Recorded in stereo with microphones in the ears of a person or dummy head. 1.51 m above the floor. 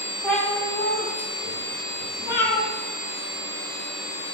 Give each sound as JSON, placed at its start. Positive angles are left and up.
{"t": 0.2, "sound": "a cat meowing", "side_deg": 5, "distance_m": 2.0}